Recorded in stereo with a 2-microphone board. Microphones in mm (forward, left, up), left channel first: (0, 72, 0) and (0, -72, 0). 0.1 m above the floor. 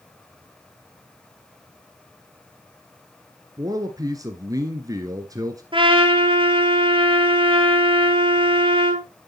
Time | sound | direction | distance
3.6 | a man speaking | 25° right (ahead or behind) | 1.3 m
5.7 | a trumpet | 40° right (ahead or behind) | 2 m